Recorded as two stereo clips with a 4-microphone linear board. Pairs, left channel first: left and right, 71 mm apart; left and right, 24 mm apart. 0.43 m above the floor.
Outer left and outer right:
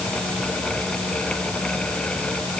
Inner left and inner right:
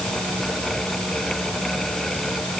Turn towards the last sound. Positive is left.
No sound to turn to.